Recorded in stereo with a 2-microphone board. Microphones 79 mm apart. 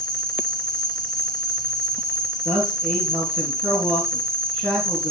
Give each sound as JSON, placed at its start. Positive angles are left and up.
{"t": 0.0, "sound": "an insect", "side_deg": 5, "distance_m": 3.5}
{"t": 2.5, "sound": "a man speaking", "side_deg": 10, "distance_m": 4.0}